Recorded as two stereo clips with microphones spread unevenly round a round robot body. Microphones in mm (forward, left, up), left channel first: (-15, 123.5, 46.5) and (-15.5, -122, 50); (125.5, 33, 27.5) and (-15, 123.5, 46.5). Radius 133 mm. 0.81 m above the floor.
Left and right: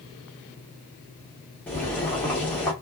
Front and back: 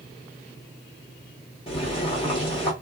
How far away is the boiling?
About 1.4 m.